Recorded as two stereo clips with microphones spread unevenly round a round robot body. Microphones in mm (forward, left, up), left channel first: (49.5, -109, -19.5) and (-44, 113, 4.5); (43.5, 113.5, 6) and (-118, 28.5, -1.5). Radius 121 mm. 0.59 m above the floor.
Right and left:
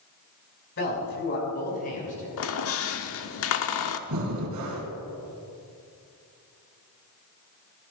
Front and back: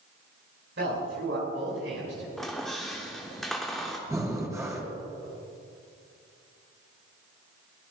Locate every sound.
0.8 s a man speaking: 110° right, 5.5 m; by 2.3 s 130° right, 6.5 m
2.4 s a squeak: 65° right, 0.9 m
4.1 s breathing: 135° left, 3 m